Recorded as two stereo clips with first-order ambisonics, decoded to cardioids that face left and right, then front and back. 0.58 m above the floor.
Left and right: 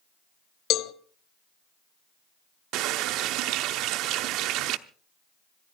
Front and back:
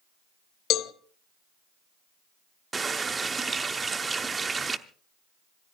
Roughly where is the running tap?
Right.